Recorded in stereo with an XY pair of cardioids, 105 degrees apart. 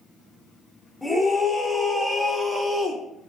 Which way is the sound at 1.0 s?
Straight ahead.